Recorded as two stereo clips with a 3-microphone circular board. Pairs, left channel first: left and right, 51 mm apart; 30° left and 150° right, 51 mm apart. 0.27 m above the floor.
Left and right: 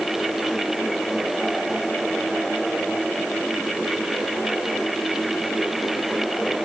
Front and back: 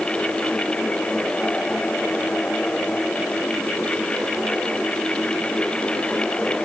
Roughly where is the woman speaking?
No woman speaking in this recording.